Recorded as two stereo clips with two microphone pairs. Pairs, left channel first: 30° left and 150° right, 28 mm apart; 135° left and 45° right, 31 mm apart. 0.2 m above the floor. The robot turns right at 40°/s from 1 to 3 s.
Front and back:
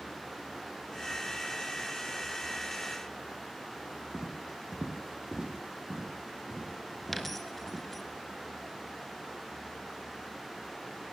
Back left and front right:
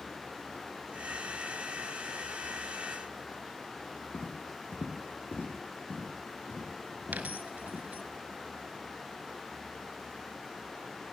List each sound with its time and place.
4.1 s footsteps: 145° left, 6 m; by 7.8 s 160° left, 9 m
7.1 s a dropped coin: 50° right, 1.3 m